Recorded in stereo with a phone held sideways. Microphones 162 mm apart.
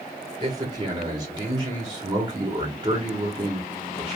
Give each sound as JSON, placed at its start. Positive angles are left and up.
{"t": 0.4, "sound": "a man speaking", "side_deg": -25, "distance_m": 1.2}